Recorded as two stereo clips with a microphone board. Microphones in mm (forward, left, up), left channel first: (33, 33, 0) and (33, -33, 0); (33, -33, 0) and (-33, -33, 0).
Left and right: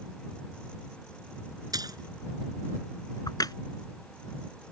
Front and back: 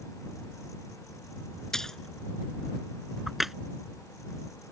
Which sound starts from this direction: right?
A splash, at 1.7 s.